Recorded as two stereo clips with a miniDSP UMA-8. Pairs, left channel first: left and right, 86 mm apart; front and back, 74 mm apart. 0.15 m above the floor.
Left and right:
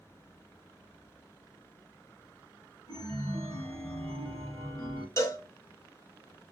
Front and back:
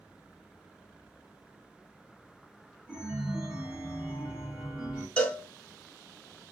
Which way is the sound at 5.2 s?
65° left.